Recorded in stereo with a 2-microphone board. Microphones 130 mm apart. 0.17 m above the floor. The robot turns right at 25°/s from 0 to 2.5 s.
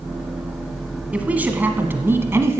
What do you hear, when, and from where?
1.1 s a woman speaking: 10° right (ahead or behind), 1.2 m; by 2.6 s 20° right (ahead or behind), 1.2 m